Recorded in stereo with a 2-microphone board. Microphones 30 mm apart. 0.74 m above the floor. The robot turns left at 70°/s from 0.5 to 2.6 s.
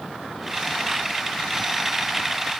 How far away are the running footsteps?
No running footsteps in this recording.